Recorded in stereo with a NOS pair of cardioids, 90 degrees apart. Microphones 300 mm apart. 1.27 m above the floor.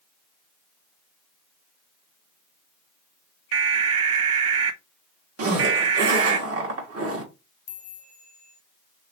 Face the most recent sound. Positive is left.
turn(degrees=30)